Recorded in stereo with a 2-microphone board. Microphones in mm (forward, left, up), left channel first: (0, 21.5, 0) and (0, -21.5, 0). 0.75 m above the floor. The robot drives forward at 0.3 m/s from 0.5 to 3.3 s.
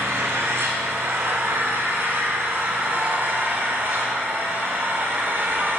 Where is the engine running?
75° right (ahead or behind), 1.7 m; by 5.8 s 55° right (ahead or behind), 2.0 m.